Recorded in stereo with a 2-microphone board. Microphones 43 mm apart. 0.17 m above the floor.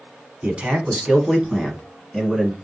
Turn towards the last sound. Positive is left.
turn(degrees=5)  # may be behind; listen again after turning